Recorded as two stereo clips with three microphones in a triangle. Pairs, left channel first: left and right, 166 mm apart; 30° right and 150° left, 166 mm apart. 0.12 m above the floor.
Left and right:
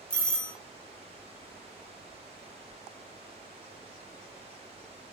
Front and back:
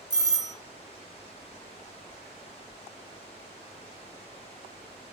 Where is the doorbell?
165° left, 1.5 m.